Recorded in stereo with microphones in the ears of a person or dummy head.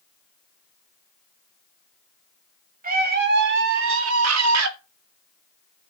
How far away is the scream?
About 1.8 m.